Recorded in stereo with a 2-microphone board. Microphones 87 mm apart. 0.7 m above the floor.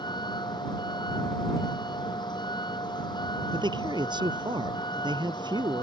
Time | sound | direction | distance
0.0 | a vehicle | 55° left (ahead or behind) | ?
3.5 | a man speaking | 55° right (ahead or behind) | ?